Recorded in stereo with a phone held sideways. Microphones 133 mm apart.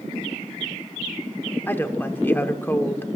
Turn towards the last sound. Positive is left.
turn(degrees=15)  # may be behind; listen again after turning